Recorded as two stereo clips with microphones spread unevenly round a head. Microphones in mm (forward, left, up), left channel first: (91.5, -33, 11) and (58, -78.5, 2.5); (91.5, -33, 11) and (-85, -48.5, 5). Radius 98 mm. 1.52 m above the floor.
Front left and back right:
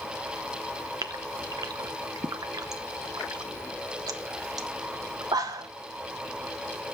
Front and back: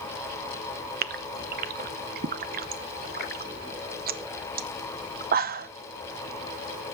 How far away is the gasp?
About 0.8 m.